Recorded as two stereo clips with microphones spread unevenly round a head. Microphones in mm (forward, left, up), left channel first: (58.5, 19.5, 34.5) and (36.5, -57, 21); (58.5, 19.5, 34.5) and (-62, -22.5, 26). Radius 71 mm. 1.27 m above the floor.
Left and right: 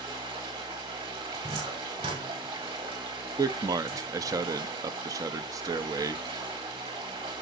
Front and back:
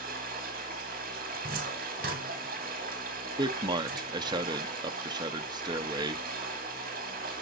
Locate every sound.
0.0 s running water: 145° right, 3 m
1.3 s a cupboard door: 140° right, 4.5 m
3.4 s a man speaking: 115° right, 0.8 m